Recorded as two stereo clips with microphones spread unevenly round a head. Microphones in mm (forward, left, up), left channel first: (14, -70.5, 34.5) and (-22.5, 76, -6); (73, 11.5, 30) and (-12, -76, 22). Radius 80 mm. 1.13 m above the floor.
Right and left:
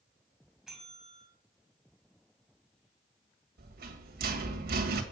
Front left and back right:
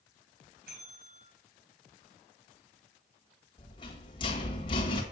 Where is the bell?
165° right, 2.5 m.